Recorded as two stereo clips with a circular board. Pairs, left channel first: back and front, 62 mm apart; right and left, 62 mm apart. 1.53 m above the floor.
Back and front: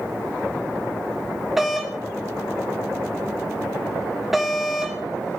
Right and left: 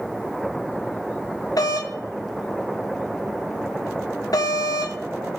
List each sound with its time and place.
1.6 s a doorbell: 85° right, 1.4 m